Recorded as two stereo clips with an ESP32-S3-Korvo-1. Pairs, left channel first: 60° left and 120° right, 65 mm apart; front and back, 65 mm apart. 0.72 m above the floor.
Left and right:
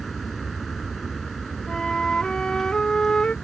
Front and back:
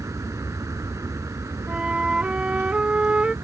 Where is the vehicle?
145° left.